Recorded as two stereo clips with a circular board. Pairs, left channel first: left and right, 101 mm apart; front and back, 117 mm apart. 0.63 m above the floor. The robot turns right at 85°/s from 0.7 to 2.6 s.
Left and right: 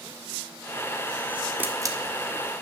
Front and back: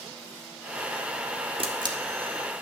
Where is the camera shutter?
160° right, 1.5 m; by 2.0 s 130° right, 1.5 m.